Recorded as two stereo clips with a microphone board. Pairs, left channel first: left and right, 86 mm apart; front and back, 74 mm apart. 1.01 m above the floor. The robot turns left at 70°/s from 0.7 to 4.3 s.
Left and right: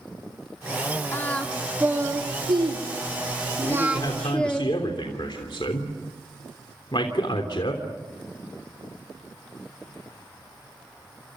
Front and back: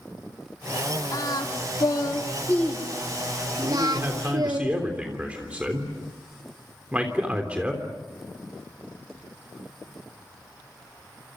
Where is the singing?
30° left, 2.5 m; by 4.6 s 170° left, 2.5 m.